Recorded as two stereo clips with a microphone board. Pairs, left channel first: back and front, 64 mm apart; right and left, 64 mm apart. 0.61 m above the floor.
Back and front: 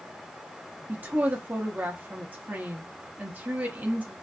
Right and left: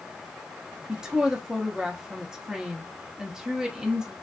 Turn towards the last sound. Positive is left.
turn(degrees=25)